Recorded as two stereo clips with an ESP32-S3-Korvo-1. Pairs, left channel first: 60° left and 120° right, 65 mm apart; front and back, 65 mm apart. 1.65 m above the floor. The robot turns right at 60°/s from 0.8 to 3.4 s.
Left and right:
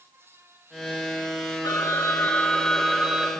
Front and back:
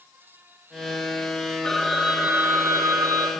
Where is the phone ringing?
75° left, 2.5 m; by 3.3 s 175° left, 2.5 m.